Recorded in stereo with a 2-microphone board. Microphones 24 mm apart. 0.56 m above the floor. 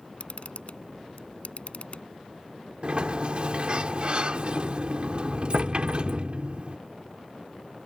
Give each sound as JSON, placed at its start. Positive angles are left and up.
{"t": 0.2, "sound": "a camera shutter", "side_deg": 60}
{"t": 2.8, "sound": "a sliding door", "side_deg": -50}